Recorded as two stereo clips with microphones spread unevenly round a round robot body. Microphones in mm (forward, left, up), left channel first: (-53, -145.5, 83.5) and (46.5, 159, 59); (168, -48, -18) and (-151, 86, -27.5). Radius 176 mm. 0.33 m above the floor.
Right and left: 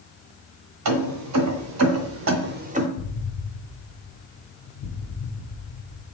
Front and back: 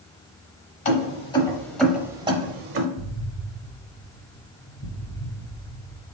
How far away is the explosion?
About 1.0 m.